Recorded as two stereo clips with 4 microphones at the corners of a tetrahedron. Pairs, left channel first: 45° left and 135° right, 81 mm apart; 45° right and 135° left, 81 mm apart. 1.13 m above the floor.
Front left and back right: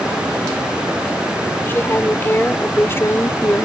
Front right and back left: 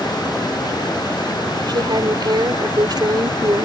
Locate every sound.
1.7 s a woman speaking: 110° left; by 3.6 s 100° left